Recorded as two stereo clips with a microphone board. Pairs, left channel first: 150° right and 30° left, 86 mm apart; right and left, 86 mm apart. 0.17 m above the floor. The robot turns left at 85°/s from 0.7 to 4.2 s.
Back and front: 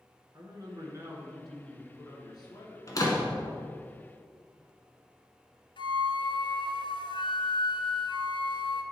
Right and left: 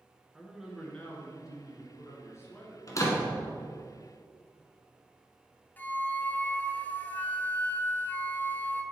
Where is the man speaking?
5° left, 1.7 m; by 3.0 s 175° left, 1.7 m.